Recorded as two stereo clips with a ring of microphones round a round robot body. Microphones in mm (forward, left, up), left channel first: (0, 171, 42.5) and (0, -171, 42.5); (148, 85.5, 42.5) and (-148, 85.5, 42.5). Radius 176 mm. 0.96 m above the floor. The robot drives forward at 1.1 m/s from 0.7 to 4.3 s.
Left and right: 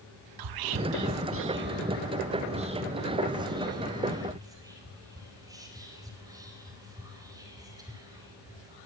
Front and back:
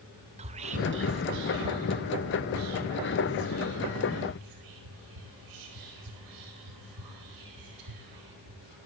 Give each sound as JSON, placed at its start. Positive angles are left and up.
{"t": 0.4, "sound": "whispering", "azimuth_deg": -110, "distance_m": 0.8}